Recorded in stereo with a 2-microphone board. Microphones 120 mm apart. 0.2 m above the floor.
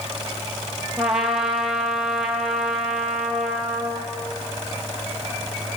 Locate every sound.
1.0 s a trumpet: centre (ahead or behind), 3 m